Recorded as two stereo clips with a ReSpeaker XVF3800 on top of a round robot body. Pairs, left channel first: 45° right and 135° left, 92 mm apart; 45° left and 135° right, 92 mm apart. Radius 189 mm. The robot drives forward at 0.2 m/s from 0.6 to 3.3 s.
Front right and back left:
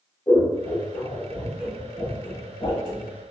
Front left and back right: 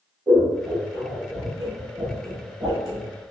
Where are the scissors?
75° right, 1.8 m; by 3.1 s 90° right, 1.8 m.